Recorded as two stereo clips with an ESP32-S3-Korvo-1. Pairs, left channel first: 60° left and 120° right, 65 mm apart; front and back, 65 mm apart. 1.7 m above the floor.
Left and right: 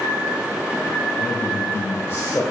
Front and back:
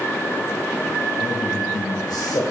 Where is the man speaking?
10° left, 1.6 m.